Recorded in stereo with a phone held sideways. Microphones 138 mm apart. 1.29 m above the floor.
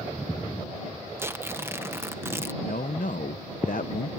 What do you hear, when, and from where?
1.2 s tearing paper: 15° right (ahead or behind)
2.6 s a man speaking: 75° left (ahead or behind)